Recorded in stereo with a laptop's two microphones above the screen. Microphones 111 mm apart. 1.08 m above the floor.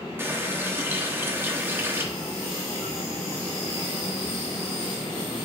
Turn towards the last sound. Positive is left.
turn(degrees=-20)  # may be behind; listen again after turning